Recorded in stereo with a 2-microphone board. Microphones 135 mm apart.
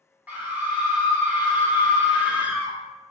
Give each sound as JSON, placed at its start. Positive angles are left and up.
{"t": 0.3, "sound": "a scream", "side_deg": -10, "distance_m": 1.1}